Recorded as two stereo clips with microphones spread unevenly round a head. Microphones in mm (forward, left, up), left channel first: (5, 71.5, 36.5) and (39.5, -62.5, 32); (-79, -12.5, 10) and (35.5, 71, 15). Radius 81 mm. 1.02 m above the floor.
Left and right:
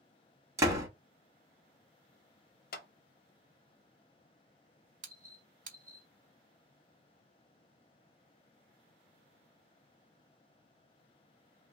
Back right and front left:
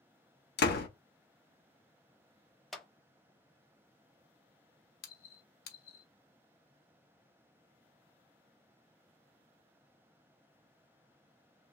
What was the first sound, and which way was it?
A door slam, 150° right.